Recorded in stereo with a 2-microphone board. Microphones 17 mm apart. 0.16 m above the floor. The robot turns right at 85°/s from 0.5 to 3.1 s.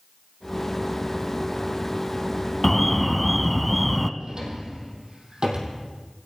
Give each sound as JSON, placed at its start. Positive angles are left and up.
{"t": 2.6, "sound": "an alarm", "side_deg": 15, "distance_m": 0.8}
{"t": 4.2, "sound": "a drawer", "side_deg": -55, "distance_m": 3.0}